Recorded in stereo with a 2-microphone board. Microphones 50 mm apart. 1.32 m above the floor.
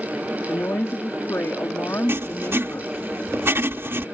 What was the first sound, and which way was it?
A woman speaking, 70° left (ahead or behind).